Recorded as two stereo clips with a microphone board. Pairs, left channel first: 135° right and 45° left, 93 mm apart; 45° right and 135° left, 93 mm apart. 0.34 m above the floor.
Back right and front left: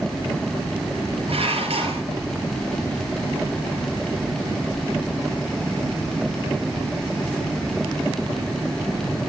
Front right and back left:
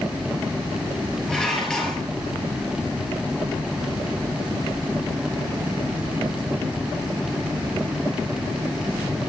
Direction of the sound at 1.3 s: 40° left.